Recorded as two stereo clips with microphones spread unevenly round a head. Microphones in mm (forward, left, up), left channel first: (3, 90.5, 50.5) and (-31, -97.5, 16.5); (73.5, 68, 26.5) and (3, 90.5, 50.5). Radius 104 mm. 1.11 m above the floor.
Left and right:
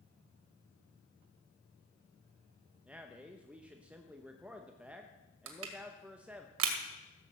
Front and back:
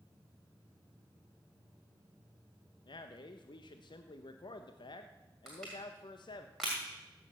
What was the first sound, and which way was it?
A man speaking, 15° right.